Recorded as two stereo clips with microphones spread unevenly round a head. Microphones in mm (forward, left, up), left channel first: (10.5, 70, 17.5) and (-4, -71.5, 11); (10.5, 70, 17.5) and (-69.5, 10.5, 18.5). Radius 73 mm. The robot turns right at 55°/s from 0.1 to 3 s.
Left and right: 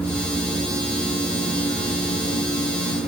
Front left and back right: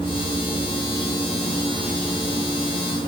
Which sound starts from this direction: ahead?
An insect, at 0.0 s.